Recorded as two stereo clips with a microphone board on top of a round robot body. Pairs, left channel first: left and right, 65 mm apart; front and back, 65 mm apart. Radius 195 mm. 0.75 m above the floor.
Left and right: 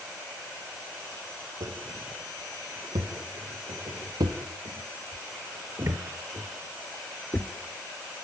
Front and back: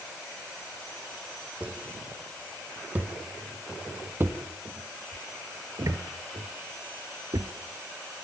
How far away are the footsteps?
About 3.5 m.